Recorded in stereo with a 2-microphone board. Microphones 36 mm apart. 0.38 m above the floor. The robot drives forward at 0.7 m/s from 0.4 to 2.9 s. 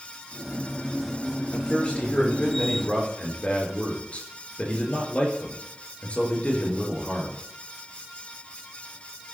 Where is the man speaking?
30° left (ahead or behind), 6 m; by 7.4 s 35° left (ahead or behind), 5 m.